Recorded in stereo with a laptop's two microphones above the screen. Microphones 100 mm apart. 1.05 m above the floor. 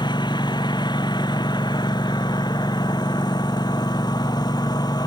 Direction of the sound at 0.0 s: 45° left (ahead or behind).